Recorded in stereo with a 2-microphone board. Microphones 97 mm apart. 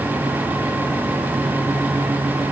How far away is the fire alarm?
I don't hear a fire alarm.